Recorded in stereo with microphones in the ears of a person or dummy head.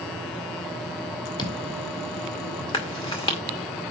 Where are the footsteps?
25° left (ahead or behind), 2.5 m; by 3.6 s 55° left (ahead or behind), 4.5 m.